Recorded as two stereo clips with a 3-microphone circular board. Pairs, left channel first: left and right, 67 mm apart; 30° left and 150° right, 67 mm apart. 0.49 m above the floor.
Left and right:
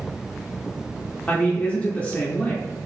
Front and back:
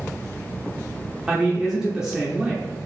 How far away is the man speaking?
About 0.8 m.